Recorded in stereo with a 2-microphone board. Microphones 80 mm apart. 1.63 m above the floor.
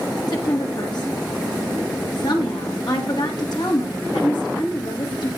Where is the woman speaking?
65° left (ahead or behind), 2 m.